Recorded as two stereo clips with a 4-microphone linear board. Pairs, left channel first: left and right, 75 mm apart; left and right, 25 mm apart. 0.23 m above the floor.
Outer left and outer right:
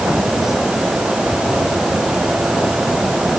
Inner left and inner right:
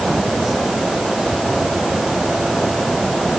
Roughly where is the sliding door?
I don't hear a sliding door.